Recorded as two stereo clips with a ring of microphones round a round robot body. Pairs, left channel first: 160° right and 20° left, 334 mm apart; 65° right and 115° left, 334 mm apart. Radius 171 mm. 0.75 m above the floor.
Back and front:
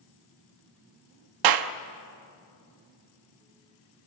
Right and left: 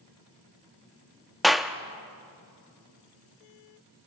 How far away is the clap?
About 0.9 m.